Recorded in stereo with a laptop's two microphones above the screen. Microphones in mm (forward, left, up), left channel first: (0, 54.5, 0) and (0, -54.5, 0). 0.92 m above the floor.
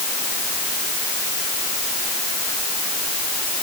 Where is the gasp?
No gasp in this recording.